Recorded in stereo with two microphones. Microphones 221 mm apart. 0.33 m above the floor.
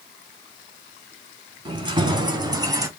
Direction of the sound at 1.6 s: 20° right (ahead or behind).